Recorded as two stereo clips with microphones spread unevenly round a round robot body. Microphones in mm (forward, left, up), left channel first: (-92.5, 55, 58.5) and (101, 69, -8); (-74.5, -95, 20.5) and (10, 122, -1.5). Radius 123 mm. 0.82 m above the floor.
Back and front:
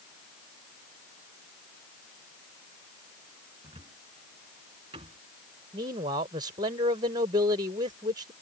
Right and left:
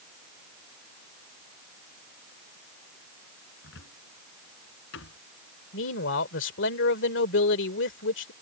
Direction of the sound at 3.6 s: 65° right.